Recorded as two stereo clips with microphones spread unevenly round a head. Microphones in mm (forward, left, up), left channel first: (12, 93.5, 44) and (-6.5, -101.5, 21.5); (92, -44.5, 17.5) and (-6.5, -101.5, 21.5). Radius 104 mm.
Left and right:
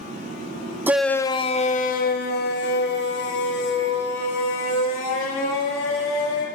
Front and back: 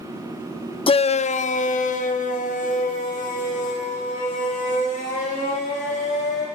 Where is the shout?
15° right, 0.6 m; by 6.5 s 60° left, 4.5 m.